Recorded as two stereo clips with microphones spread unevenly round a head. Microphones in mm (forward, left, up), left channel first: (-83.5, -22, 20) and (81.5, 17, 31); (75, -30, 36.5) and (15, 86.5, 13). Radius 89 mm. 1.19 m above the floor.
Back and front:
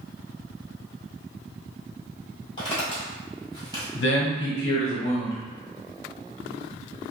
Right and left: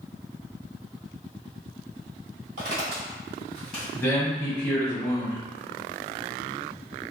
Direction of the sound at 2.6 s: 135° left.